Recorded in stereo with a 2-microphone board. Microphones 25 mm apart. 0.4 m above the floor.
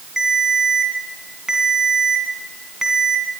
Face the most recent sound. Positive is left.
turn(degrees=-25)  # may be behind; listen again after turning